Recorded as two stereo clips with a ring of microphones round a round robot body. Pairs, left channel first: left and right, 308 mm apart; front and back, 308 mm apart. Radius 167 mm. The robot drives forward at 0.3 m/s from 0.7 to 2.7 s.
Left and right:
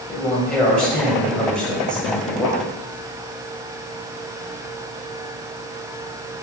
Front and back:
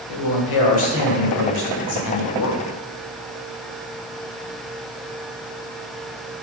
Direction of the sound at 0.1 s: 5° left.